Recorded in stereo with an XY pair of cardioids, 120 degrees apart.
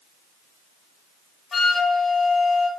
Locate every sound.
1.5 s a flute: 30° left, 1.0 m